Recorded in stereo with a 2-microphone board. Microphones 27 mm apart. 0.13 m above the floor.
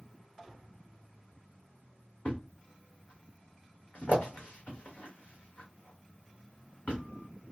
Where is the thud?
60° left (ahead or behind), 1.6 m.